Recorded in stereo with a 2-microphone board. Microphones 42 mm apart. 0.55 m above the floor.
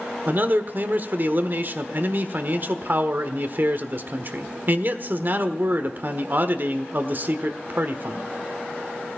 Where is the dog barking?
I don't hear a dog barking.